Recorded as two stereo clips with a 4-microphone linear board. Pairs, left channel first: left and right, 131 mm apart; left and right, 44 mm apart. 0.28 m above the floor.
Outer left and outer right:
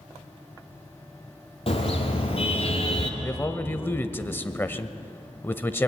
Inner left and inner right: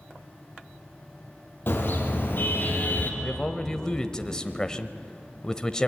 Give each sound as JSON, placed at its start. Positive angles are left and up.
{"t": 1.7, "sound": "a car horn", "side_deg": 45, "distance_m": 5.0}
{"t": 3.2, "sound": "a man speaking", "side_deg": 15, "distance_m": 0.9}